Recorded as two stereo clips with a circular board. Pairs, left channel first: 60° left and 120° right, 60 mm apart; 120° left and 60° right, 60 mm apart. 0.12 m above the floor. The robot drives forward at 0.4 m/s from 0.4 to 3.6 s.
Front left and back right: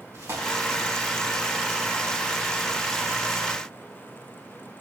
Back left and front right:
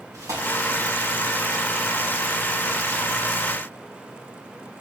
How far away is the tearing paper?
About 7 m.